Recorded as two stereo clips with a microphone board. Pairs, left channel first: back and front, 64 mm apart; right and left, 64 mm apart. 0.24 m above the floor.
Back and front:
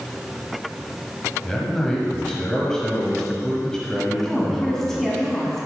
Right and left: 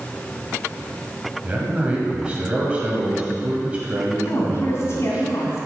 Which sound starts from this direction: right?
A woman speaking, at 4.2 s.